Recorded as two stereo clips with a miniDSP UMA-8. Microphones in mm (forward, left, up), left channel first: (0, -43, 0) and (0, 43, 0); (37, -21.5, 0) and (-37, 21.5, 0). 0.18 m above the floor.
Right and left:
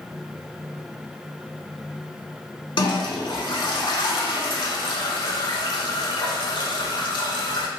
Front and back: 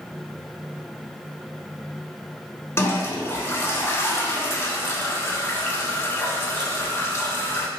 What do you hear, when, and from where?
2.8 s a toilet flushing: 85° right, 0.5 m